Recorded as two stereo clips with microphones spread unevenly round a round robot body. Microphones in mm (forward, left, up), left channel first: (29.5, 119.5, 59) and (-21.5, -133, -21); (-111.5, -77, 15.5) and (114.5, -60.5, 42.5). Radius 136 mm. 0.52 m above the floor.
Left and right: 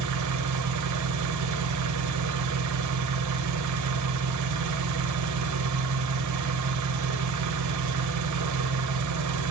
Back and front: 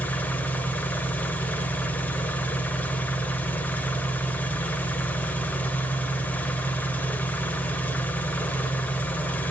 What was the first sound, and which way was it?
An engine running, 95° right.